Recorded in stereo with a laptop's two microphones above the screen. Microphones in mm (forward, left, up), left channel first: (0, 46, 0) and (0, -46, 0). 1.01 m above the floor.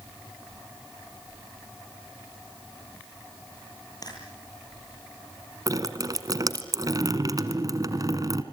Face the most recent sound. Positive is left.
turn(degrees=-40)  # may be behind; listen again after turning